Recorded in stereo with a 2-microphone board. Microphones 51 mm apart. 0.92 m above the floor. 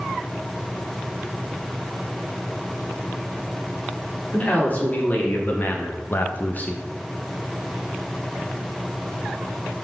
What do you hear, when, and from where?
4.3 s a man speaking: 35° left (ahead or behind), 2.5 m; by 6.8 s 20° left (ahead or behind), 0.8 m